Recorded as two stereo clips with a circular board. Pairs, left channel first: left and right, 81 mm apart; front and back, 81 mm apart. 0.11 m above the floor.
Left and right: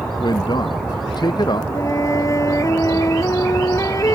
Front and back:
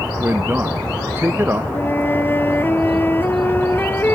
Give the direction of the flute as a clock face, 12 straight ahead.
10 o'clock.